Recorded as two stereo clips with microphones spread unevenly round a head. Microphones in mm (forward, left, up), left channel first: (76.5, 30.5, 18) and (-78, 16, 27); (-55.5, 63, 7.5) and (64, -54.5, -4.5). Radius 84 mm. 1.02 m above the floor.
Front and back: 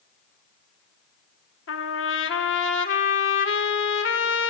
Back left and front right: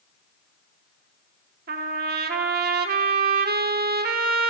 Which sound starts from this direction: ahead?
A trumpet, at 1.7 s.